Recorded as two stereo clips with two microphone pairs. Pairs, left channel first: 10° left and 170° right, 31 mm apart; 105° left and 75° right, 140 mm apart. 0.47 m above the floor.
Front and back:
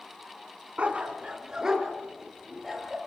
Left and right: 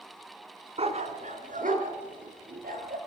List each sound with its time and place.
0.8 s a dog barking: 120° right, 1.7 m; by 3.0 s 80° right, 3.5 m